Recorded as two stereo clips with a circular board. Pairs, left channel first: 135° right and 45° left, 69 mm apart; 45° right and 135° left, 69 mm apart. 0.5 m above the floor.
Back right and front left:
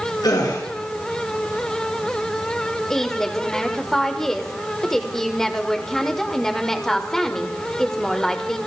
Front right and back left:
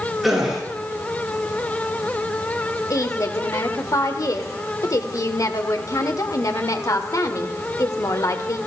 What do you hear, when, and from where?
0.2 s a gasp: 140° right, 7.5 m
2.9 s a woman speaking: 55° right, 1.5 m